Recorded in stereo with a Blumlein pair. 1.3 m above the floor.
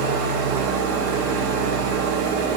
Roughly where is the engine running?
Ahead right.